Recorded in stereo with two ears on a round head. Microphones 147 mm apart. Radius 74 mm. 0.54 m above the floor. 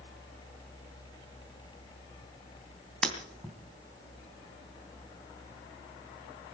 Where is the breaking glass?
5° left (ahead or behind), 3 m.